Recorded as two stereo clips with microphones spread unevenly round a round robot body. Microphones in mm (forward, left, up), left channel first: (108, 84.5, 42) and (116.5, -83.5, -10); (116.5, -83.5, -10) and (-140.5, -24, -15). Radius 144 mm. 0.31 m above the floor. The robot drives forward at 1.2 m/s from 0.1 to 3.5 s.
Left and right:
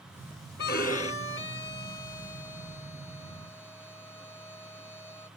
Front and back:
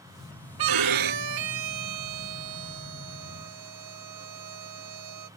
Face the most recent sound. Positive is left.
turn(degrees=175)